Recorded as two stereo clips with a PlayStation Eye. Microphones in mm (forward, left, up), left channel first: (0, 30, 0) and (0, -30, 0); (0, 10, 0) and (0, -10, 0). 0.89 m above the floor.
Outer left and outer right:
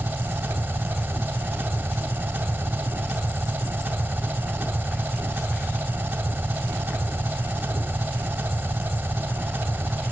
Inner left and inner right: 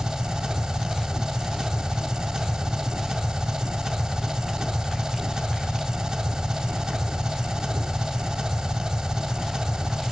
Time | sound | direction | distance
0.0 | an engine running | 30° right (ahead or behind) | 2.0 m